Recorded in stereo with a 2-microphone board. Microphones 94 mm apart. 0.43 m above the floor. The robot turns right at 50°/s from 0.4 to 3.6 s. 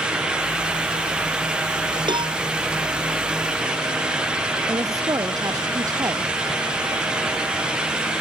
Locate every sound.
2.1 s a cowbell: 55° right (ahead or behind); by 2.4 s 70° right (ahead or behind)
4.7 s a woman speaking: 40° right (ahead or behind)